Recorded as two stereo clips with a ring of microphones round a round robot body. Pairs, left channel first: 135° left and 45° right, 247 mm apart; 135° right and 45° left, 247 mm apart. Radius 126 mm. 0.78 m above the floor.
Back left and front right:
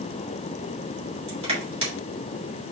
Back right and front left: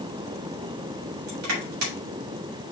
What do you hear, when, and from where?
1.3 s crushing: 20° left, 3.5 m